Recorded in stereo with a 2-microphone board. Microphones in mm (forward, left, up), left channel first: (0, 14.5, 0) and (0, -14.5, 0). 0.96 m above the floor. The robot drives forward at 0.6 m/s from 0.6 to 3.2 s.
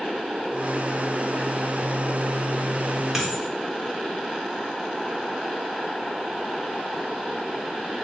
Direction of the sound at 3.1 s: 10° right (ahead or behind).